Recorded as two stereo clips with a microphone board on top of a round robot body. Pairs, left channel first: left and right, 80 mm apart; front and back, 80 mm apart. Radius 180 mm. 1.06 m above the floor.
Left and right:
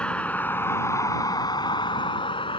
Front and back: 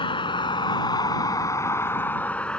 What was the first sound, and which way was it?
A vehicle, 15° left.